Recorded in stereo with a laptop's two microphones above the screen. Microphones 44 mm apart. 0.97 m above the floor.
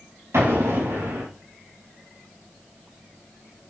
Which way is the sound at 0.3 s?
80° right.